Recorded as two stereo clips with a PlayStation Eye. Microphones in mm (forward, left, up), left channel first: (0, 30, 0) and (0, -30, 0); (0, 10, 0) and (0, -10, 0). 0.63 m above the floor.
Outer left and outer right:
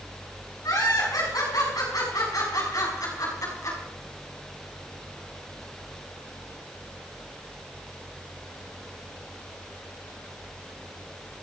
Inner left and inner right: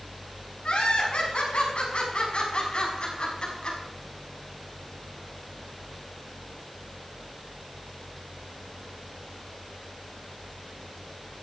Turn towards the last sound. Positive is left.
turn(degrees=60)  # may be behind; listen again after turning